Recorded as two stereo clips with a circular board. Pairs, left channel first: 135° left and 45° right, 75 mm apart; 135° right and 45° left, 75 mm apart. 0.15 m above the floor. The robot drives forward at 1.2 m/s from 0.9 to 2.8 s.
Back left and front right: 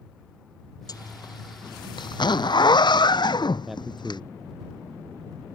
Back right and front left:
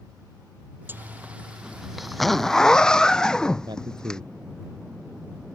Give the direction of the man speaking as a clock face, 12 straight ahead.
11 o'clock.